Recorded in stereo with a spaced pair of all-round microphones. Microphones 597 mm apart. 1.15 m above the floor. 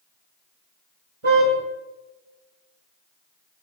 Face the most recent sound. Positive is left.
turn(degrees=-60)  # may be behind; listen again after turning